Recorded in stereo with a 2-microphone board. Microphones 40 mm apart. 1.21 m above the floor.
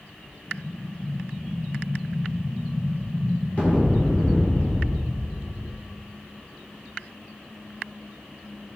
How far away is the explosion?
About 2.5 m.